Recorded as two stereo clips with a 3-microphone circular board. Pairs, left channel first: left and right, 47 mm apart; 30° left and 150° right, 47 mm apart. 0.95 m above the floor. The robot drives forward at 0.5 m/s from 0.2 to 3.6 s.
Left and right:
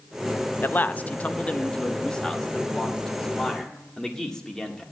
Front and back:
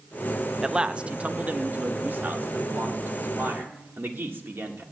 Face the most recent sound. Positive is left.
turn(degrees=170)